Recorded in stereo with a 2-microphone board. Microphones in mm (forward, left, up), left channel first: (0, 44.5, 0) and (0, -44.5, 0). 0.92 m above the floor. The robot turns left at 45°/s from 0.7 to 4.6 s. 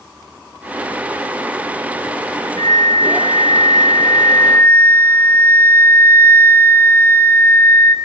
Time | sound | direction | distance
2.6 | a flute | 115° left | 0.9 m